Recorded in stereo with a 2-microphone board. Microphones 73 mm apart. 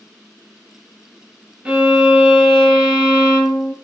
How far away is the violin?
About 0.7 m.